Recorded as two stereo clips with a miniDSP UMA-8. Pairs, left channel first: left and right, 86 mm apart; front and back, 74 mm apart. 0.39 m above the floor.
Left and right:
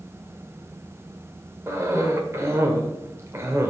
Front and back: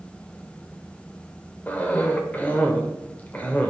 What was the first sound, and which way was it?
A cough, 55° right.